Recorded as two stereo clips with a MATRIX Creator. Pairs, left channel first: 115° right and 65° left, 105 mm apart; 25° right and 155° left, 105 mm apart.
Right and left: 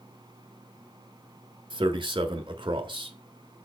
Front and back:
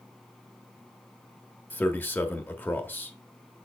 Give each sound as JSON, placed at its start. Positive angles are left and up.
{"t": 1.7, "sound": "a man speaking", "azimuth_deg": 45, "distance_m": 1.2}